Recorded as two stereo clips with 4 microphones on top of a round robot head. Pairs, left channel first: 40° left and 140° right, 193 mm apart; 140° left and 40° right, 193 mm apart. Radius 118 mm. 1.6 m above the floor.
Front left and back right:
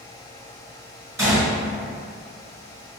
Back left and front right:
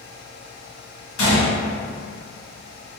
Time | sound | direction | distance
1.2 | a gunshot | 145° left | 1.2 m